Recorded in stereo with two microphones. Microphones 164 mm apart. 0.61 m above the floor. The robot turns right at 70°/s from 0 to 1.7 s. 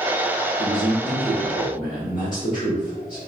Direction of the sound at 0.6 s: 15° right.